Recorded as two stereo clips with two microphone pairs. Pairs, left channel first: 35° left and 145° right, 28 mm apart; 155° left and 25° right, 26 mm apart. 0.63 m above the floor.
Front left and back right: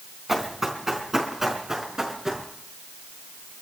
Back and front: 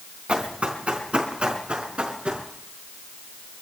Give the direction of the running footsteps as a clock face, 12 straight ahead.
2 o'clock.